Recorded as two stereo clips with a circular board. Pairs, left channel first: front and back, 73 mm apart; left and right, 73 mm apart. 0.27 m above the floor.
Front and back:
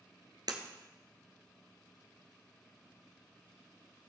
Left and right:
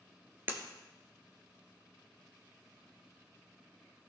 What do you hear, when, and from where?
0.5 s breaking glass: 155° right, 1.5 m